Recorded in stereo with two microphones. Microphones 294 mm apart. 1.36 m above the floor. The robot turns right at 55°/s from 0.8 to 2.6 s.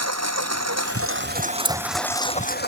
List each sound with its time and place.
0.0 s a lawn mower: 65° right; by 2.7 s 35° left
1.6 s keys jangling: 5° left (ahead or behind); by 1.8 s centre (ahead or behind)